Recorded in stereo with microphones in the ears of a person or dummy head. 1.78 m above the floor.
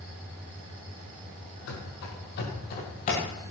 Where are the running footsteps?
60° left (ahead or behind), 3.5 m; by 3.2 s 30° left (ahead or behind), 3 m.